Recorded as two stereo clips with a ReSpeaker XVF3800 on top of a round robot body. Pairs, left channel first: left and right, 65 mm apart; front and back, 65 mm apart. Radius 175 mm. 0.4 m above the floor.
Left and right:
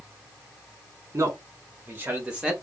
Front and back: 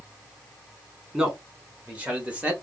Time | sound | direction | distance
1.1 | a man speaking | 110° right | 2.0 m